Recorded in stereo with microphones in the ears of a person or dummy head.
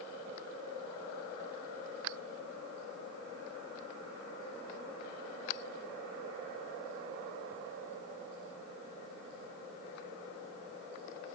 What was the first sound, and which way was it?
Only background noise.